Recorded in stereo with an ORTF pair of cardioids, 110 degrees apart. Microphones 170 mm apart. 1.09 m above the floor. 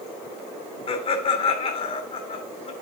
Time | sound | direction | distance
0.9 | laughter | 35° left | 3 m